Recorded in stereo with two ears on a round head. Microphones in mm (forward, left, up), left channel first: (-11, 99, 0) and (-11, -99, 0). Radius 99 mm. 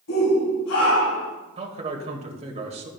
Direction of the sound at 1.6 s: 30° right (ahead or behind).